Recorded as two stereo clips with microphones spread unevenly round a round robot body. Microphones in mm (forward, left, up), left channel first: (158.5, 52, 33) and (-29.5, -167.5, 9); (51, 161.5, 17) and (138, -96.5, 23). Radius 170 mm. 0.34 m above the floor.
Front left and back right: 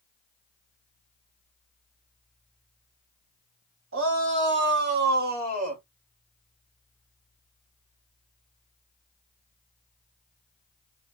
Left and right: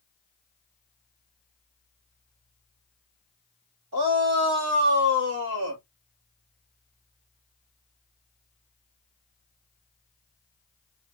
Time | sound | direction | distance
3.9 | a shout | 100° right | 2.5 m